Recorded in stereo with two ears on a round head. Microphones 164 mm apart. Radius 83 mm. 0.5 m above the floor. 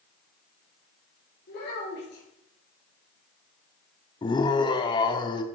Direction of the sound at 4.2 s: 25° left (ahead or behind).